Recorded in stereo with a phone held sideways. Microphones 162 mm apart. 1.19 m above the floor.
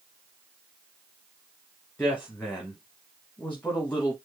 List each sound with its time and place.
2.0 s a woman speaking: 10° left (ahead or behind), 1.3 m